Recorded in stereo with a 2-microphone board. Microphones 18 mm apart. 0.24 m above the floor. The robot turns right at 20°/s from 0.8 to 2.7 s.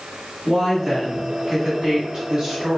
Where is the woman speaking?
135° right, 1.7 m; by 2.8 s 100° right, 1.7 m.